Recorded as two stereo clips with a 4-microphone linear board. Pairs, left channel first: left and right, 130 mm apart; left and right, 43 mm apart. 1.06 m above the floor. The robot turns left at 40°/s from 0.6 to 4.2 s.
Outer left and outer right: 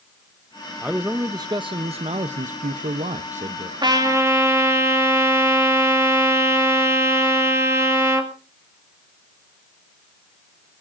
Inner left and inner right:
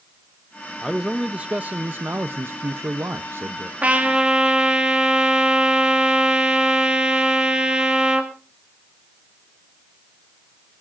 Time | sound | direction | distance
0.8 | a man speaking | 10° right | 0.6 m
3.8 | a trumpet | 35° right (ahead or behind) | 2.5 m